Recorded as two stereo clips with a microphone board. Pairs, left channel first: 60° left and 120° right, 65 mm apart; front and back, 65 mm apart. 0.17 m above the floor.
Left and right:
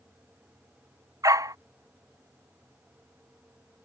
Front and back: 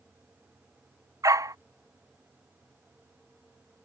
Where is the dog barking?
150° right.